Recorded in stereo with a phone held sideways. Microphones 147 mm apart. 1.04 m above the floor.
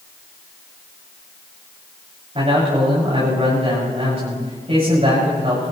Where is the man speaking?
45° right (ahead or behind), 6 m.